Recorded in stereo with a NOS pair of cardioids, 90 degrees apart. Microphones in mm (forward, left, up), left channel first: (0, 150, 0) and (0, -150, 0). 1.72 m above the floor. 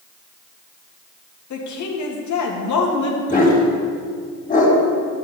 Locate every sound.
1.5 s a woman speaking: 65° left, 2.5 m
3.3 s a dog barking: 25° left, 3.5 m